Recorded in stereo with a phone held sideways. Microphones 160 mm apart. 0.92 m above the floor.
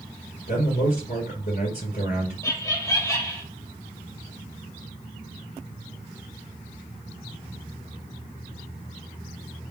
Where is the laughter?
20° left (ahead or behind), 0.8 m.